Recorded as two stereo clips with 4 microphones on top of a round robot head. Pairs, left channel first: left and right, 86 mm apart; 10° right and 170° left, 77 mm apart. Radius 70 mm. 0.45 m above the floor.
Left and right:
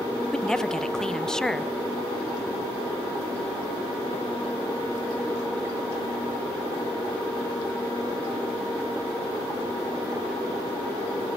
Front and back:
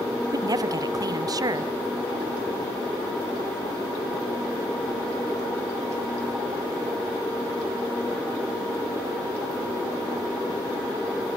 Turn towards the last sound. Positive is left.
turn(degrees=170)